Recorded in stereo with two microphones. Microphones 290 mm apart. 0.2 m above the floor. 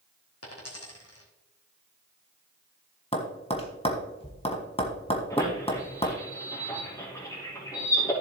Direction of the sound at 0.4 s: 55° left (ahead or behind).